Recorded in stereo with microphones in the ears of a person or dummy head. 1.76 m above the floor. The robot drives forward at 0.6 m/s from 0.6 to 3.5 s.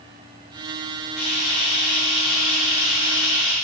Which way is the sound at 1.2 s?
5° left (ahead or behind).